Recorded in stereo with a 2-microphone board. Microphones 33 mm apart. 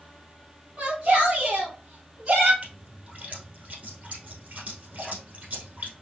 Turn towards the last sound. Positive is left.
turn(degrees=-50)  # may be behind; listen again after turning